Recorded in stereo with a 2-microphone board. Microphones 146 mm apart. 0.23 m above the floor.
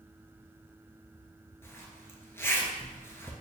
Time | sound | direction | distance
1.6 | a zipper | 15° left (ahead or behind) | 0.5 m